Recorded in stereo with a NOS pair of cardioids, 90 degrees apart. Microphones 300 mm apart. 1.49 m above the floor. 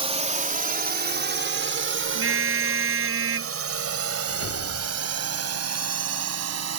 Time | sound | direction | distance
0.0 | a drone | 20° right | ?
2.1 | a car horn | 45° right | ?
4.3 | a whoosh | 45° left | ?